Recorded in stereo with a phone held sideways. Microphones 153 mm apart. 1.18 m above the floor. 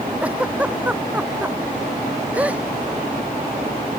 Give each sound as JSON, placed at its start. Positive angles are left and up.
{"t": 0.2, "sound": "a giggle", "side_deg": -10}